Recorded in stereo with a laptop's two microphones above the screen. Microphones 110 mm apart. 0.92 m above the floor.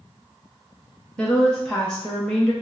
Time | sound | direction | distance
1.2 | a woman speaking | 5° left (ahead or behind) | 0.6 m